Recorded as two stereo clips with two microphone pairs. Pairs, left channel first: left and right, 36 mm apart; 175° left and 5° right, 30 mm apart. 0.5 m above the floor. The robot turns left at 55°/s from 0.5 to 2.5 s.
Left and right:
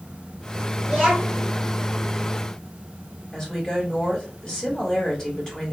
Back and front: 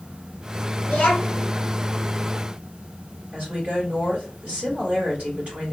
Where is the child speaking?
175° right, 1.2 m; by 1.5 s 150° left, 1.2 m.